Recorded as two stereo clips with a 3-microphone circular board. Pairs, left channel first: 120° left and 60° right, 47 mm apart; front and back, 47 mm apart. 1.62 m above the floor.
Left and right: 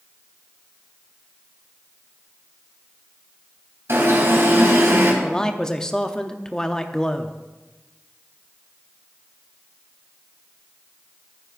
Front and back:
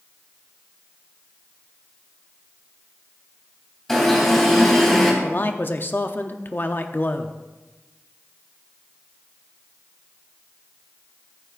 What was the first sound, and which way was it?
An alarm, 85° right.